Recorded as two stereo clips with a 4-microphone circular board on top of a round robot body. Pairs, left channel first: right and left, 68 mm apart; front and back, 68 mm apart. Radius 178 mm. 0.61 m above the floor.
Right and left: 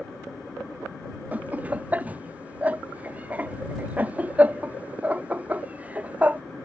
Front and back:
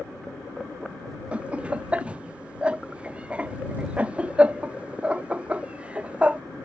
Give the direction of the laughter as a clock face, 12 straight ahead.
8 o'clock.